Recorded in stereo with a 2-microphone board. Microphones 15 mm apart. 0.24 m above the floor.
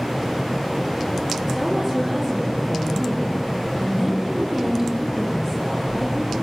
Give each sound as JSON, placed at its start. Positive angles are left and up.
{"t": 1.5, "sound": "a woman speaking", "side_deg": -15, "distance_m": 8.0}